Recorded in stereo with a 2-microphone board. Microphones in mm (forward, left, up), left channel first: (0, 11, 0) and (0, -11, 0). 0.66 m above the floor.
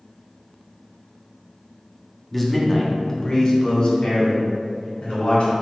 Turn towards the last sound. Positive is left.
turn(degrees=60)  # may be behind; listen again after turning